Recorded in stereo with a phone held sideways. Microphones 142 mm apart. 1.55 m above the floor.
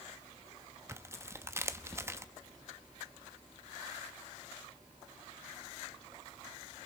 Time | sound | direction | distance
0.9 | tearing paper | 20° right (ahead or behind) | 0.9 m